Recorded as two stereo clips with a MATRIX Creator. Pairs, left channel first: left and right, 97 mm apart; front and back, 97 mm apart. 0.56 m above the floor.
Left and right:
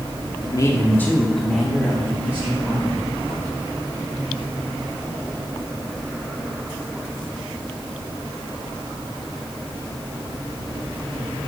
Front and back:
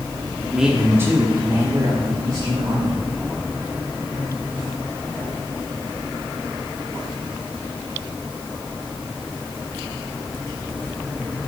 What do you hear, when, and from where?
0.4 s a man speaking: 90° left, 1.4 m; by 3.0 s 155° right, 3 m